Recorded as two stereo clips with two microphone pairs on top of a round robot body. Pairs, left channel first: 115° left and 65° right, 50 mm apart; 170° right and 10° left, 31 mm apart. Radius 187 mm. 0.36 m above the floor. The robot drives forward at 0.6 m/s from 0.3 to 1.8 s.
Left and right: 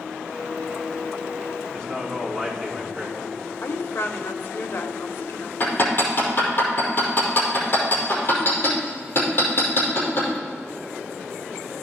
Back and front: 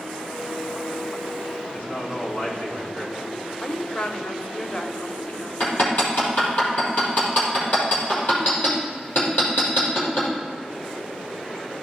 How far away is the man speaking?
About 4.5 m.